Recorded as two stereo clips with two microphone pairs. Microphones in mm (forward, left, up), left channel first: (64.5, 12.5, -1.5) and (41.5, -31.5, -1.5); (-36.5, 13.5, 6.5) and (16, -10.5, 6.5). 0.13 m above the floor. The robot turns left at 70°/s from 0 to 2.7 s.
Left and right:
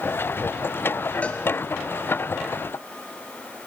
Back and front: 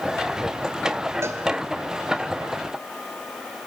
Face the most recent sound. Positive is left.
turn(degrees=-95)